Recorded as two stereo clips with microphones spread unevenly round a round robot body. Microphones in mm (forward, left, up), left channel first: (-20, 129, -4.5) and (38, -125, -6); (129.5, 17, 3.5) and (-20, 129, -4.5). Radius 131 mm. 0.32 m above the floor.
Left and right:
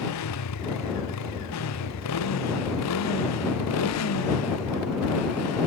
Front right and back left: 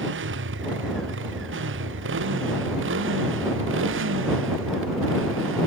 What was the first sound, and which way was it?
A motorcycle, 130° left.